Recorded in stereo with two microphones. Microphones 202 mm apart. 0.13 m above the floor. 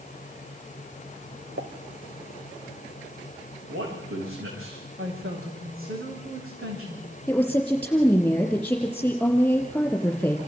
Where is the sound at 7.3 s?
5° left (ahead or behind), 4.5 m.